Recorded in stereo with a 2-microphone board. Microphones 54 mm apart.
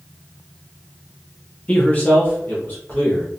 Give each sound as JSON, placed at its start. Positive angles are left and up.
{"t": 1.7, "sound": "a man speaking", "side_deg": 25, "distance_m": 0.6}